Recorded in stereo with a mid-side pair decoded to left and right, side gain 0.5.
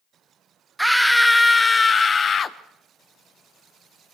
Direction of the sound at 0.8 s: 5° right.